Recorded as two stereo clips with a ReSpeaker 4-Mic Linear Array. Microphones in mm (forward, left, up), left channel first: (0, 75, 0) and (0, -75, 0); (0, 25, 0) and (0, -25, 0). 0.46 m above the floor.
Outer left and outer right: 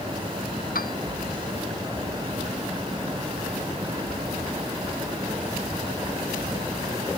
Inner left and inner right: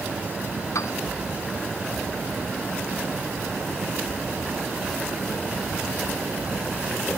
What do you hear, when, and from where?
0.8 s a piano: 80° left